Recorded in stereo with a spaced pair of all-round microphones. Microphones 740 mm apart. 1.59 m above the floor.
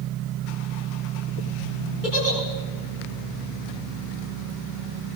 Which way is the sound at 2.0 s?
80° left.